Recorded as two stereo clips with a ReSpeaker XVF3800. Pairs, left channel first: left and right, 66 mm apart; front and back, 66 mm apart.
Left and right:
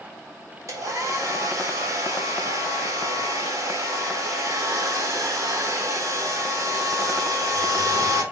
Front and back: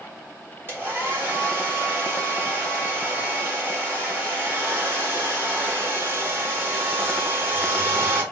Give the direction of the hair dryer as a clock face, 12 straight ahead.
4 o'clock.